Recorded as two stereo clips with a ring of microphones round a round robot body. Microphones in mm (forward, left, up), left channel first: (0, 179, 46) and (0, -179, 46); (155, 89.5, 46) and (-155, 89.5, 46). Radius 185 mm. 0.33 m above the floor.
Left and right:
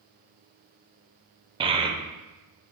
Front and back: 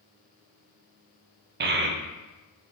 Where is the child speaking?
155° right, 0.5 m.